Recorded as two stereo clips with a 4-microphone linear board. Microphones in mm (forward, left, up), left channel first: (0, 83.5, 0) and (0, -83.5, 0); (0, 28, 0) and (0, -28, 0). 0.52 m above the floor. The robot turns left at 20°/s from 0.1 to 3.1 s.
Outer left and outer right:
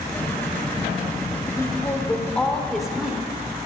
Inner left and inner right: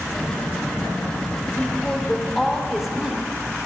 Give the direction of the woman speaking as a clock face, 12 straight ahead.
11 o'clock.